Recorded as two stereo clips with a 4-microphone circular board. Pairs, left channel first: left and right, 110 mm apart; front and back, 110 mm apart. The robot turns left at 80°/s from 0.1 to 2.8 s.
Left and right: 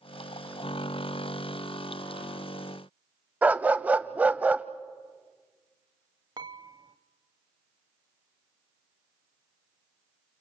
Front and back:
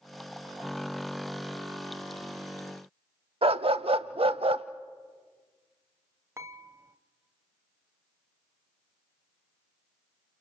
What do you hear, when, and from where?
3.4 s a dog barking: 165° right, 0.6 m
6.4 s dishes clattering: 120° right, 0.8 m